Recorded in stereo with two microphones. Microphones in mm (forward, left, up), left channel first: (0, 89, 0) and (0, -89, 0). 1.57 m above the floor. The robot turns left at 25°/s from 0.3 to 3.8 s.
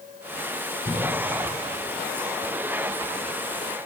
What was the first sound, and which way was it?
A cough, 15° right (ahead or behind).